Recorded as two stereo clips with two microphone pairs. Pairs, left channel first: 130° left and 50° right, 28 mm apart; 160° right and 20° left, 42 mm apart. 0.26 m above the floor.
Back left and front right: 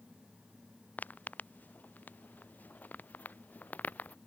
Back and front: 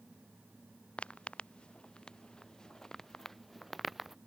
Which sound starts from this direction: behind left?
Footsteps, at 1.0 s.